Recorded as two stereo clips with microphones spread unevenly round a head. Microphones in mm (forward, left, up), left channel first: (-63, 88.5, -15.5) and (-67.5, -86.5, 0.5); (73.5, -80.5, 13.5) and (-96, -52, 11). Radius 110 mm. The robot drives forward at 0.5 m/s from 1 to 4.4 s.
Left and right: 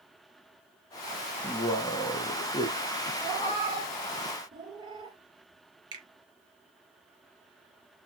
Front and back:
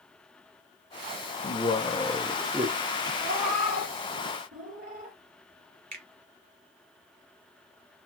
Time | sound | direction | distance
1.4 | a man speaking | 30° left | 0.9 m
3.2 | a cat meowing | 155° right | 3 m
5.9 | a finger snap | 155° right | 2.5 m